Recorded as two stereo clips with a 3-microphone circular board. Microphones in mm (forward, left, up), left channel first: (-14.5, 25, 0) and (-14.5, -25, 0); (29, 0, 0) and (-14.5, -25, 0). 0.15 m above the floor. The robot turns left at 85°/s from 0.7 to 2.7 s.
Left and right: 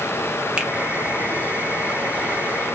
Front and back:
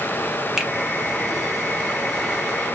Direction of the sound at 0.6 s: 90° right.